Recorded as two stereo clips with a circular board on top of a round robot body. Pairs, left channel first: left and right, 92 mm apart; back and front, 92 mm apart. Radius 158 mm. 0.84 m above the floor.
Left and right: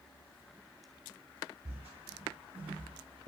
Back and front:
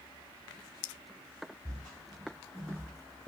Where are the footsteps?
100° right, 2.0 m; by 3.3 s 110° right, 1.0 m.